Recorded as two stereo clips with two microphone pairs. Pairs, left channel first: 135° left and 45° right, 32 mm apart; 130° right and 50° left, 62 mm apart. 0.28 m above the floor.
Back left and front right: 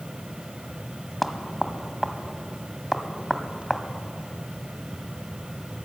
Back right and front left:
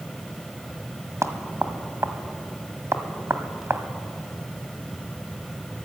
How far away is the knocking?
About 1.5 m.